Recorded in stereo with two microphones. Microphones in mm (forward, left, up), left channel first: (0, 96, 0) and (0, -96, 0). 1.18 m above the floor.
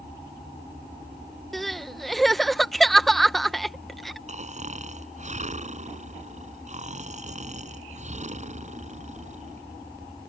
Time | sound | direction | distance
1.5 | crying | centre (ahead or behind) | ?
4.3 | snoring | 40° right (ahead or behind) | ?